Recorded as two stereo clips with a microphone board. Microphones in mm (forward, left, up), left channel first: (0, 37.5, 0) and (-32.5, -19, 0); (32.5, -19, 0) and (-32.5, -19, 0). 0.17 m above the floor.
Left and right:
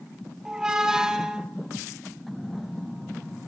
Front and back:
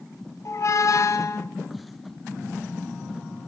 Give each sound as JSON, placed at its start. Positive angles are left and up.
{"t": 0.5, "sound": "a squeak", "azimuth_deg": -40, "distance_m": 0.5}